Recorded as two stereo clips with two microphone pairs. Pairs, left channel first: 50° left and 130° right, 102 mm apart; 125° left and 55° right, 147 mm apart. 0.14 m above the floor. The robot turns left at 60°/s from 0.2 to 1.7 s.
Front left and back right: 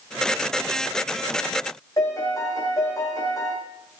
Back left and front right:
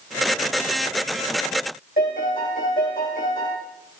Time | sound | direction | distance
2.0 | a piano | 105° left | 7 m